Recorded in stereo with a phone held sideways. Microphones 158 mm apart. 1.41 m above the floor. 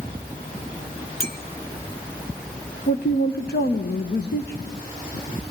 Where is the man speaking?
85° left, 1.1 m.